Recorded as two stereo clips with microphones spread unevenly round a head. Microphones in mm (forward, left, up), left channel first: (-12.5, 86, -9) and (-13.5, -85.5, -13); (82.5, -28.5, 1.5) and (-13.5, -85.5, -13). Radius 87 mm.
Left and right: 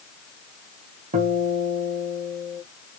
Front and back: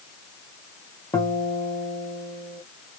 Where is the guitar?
40° right, 1.5 m.